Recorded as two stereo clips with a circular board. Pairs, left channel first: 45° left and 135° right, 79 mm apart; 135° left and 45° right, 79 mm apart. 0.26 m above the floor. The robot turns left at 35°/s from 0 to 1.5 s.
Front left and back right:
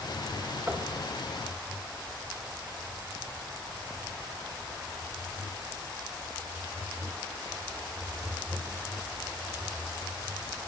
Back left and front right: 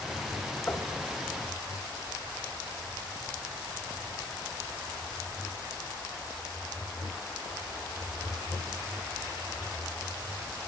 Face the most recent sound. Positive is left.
turn(degrees=145)